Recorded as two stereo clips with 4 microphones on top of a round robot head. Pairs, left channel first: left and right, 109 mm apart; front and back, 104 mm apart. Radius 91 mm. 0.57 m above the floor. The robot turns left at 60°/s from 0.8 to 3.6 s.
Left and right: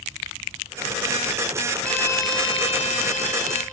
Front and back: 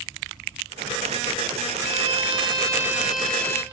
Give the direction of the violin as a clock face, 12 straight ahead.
6 o'clock.